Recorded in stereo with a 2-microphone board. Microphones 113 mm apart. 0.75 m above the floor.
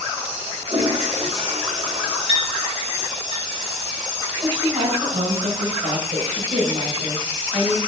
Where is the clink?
45° right (ahead or behind), 3 m.